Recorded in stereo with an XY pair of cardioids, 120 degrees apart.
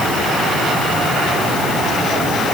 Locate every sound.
Only background noise.